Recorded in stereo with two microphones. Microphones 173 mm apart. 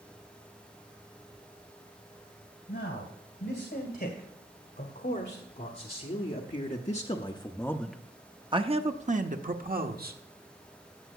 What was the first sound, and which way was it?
A man speaking, 75° left (ahead or behind).